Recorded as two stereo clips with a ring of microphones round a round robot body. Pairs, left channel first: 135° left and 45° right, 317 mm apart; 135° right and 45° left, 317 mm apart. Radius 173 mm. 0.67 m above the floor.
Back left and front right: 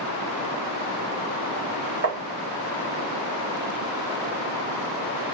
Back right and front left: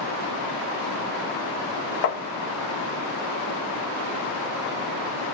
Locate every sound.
2.0 s tapping: 95° right, 0.7 m